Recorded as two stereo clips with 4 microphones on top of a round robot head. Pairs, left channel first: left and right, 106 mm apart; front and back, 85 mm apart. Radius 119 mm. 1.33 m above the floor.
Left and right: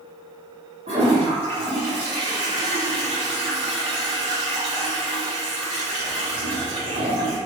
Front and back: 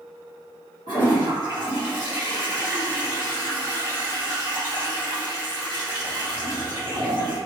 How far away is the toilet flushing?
About 0.8 m.